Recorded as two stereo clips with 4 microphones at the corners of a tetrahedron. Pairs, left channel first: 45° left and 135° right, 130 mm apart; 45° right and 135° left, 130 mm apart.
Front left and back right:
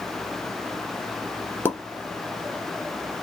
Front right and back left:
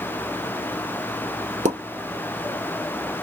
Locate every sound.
1.6 s a pop: 115° left, 1.2 m